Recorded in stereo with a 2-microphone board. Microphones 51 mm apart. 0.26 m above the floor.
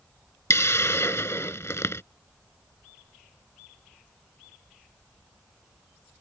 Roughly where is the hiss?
Left.